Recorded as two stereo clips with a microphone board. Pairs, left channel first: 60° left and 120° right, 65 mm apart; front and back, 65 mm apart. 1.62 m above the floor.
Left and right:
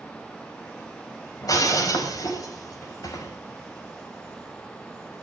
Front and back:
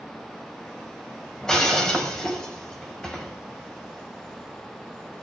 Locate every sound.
1.4 s breaking glass: 80° left, 4.5 m